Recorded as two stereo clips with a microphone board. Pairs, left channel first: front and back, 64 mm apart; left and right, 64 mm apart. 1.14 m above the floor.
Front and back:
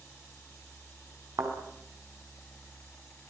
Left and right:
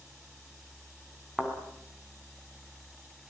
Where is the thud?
170° right, 5.5 m.